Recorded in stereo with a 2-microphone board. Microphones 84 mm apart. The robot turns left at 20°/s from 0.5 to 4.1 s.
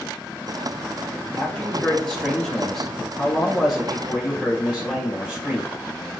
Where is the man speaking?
15° left (ahead or behind), 1.2 m; by 5.8 s 10° right (ahead or behind), 1.2 m.